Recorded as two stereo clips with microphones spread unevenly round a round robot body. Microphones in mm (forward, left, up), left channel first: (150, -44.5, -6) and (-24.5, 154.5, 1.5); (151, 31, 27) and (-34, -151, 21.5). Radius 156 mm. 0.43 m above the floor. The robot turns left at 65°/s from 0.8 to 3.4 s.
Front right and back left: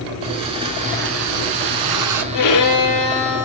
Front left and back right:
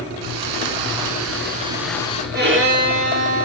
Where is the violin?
80° right, 5 m; by 3.5 s 150° right, 5 m.